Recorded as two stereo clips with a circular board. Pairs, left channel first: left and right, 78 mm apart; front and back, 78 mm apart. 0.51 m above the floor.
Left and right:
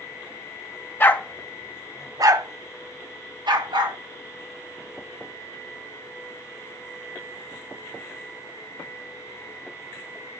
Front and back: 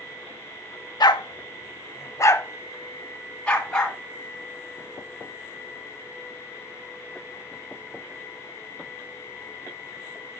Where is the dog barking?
25° left, 0.6 m; by 4.0 s 80° right, 1.6 m.